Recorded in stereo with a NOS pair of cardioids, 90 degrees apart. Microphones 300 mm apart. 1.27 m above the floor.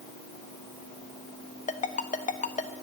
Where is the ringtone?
25° left, 1.0 m.